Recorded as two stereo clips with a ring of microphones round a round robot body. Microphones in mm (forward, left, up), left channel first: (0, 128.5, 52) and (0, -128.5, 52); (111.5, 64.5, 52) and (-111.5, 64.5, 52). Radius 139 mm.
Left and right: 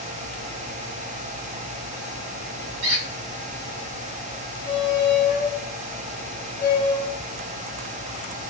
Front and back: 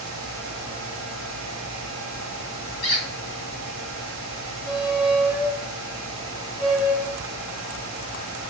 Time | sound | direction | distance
2.8 | a squeak | 55° right | 1.8 m
4.7 | a squeak | 100° left | 1.1 m